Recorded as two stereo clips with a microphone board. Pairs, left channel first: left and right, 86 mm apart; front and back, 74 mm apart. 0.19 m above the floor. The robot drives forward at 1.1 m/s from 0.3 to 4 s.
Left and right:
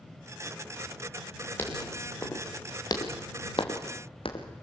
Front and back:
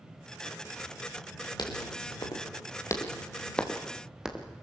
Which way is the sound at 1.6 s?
25° left.